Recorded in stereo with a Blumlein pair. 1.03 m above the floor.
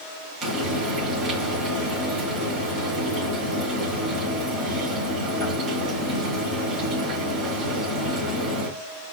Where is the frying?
15° right, 3 m.